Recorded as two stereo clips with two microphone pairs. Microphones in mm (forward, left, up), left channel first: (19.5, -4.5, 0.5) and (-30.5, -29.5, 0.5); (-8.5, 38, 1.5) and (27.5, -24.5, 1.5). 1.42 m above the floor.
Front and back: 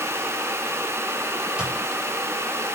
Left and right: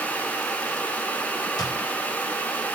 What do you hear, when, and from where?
1.6 s an alarm clock: 135° left, 3.5 m